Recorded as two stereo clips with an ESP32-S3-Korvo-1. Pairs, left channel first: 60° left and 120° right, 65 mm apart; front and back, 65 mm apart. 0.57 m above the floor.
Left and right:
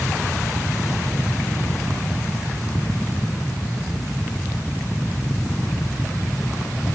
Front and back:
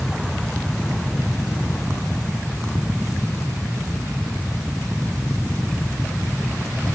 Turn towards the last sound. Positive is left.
No sound to turn to.